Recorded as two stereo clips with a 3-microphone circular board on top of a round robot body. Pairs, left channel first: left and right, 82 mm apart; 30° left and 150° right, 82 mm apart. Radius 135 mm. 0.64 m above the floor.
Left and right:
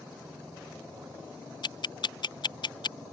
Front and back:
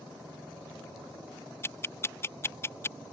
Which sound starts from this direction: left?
Ticking, at 1.6 s.